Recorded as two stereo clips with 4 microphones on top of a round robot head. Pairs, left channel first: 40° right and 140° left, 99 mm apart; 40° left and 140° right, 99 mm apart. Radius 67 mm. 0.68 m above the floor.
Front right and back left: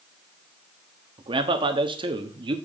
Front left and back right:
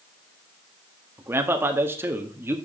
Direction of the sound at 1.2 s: 160° left.